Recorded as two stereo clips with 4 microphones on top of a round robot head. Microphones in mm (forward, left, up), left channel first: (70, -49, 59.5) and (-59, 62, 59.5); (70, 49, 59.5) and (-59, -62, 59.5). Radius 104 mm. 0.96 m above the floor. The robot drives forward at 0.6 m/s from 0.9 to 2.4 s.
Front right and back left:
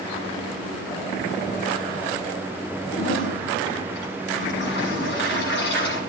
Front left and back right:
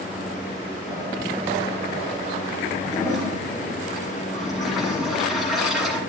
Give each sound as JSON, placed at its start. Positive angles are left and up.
{"t": 2.9, "sound": "a toilet flushing", "azimuth_deg": -50, "distance_m": 7.5}